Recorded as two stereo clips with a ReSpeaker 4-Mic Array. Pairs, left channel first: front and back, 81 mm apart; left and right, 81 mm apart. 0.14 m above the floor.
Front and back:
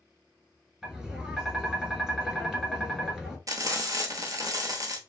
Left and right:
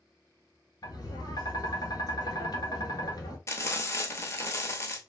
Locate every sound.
0.8 s tapping: 100° left, 0.7 m
3.5 s frying: 140° left, 0.7 m